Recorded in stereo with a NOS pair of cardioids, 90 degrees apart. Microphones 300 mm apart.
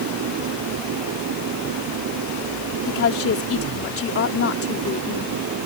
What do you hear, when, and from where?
0.0 s an engine running: 70° right
2.9 s a woman speaking: 45° left